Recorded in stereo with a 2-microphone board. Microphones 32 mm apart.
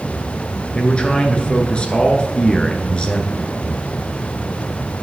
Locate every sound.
0.8 s a man speaking: 35° left (ahead or behind), 1.5 m